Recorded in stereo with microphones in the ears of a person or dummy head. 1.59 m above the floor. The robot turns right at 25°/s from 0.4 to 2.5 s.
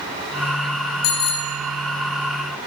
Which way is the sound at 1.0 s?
45° left (ahead or behind).